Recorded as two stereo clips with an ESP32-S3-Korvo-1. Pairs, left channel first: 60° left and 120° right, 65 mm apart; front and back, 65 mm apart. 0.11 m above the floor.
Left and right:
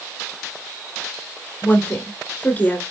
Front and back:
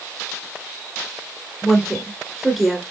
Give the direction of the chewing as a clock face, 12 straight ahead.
I don't hear chewing.